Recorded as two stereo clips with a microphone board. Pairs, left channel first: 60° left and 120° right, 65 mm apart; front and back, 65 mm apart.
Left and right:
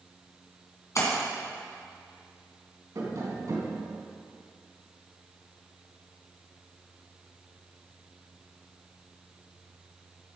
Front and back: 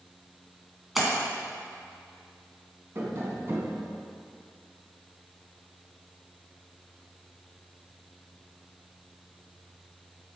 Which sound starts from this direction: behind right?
Tapping, at 3.0 s.